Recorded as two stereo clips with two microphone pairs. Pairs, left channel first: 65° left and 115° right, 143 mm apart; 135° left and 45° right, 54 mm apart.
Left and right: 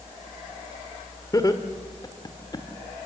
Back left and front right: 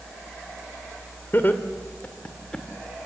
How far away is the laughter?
About 1.8 m.